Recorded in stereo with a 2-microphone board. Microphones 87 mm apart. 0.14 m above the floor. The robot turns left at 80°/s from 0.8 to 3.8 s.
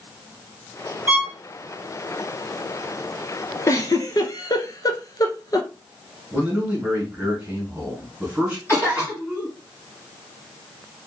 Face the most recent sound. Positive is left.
turn(degrees=35)  # may be behind; listen again after turning